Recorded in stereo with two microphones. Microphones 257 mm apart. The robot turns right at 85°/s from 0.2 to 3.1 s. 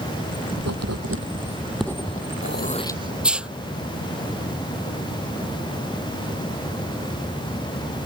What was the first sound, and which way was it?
Writing, 70° right (ahead or behind).